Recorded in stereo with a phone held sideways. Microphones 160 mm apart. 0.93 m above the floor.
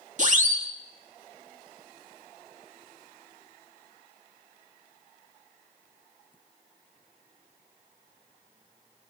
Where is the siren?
50° right (ahead or behind), 2.5 m.